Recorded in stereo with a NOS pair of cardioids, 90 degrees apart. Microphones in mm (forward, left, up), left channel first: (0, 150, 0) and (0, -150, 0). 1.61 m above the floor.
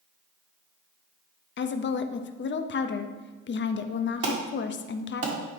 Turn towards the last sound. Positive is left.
turn(degrees=-55)